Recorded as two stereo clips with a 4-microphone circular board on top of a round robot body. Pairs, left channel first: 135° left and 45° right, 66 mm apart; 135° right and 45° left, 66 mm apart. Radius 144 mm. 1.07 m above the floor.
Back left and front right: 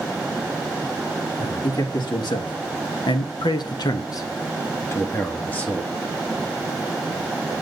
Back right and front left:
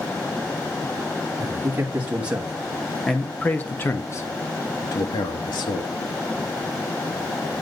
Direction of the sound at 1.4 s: 105° left.